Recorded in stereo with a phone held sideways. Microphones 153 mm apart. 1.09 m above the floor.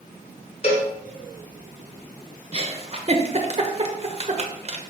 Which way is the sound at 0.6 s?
45° left (ahead or behind).